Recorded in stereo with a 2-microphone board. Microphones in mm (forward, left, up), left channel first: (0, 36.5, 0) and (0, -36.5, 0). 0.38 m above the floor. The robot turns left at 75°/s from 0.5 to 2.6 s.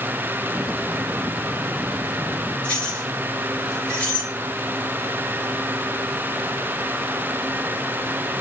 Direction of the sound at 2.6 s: 20° left (ahead or behind).